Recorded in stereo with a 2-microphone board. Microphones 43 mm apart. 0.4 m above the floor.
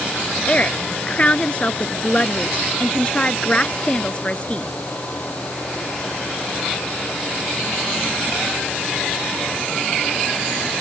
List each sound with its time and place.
0.5 s a woman speaking: 30° left (ahead or behind)